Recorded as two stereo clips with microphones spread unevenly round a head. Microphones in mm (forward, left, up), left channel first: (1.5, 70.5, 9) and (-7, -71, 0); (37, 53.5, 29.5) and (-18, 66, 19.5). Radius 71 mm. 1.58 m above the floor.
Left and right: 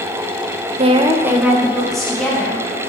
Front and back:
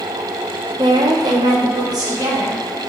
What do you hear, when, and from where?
0.8 s a woman speaking: 140° right, 0.6 m; by 2.6 s 170° left, 2.5 m